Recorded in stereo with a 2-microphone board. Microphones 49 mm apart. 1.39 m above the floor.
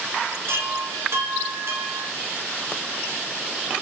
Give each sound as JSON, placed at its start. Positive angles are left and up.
{"t": 0.5, "sound": "a chime", "side_deg": -60, "distance_m": 1.2}